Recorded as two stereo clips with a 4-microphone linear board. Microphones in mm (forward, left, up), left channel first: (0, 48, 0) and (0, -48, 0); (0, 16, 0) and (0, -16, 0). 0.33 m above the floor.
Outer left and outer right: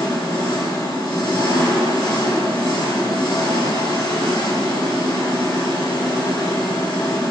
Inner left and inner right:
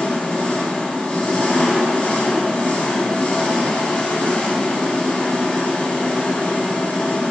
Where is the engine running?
45° left (ahead or behind), 0.9 m.